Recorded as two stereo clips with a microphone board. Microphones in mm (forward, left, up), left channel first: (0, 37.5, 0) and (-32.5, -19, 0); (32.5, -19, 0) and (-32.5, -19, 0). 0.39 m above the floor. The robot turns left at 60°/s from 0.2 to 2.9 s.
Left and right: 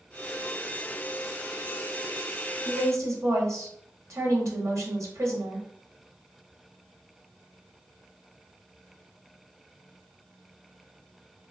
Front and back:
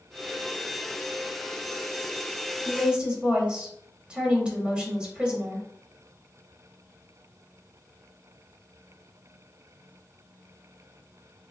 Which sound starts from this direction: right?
A woman speaking, at 2.6 s.